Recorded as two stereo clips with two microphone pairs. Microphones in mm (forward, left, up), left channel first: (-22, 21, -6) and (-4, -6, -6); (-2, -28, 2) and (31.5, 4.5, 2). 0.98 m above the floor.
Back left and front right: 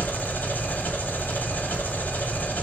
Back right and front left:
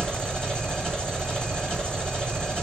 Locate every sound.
0.0 s an engine running: 150° left, 2.0 m